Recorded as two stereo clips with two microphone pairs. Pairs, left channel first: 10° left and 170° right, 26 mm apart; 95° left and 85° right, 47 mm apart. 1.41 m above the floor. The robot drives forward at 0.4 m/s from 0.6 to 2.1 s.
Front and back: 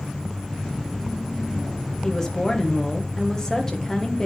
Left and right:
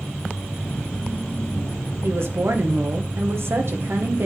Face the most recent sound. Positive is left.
turn(degrees=-60)